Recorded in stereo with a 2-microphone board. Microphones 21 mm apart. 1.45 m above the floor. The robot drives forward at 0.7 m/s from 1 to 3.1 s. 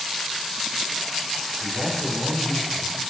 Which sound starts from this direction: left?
A man speaking, at 1.6 s.